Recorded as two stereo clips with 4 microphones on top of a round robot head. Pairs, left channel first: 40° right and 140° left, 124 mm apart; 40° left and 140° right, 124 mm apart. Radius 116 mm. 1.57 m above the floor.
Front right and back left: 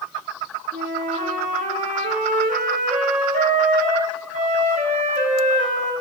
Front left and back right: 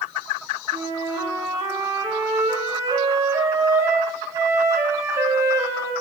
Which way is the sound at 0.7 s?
155° left.